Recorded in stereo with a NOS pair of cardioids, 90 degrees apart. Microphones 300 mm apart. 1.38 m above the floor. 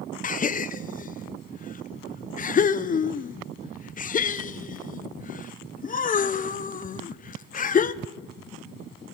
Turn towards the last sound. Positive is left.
turn(degrees=30)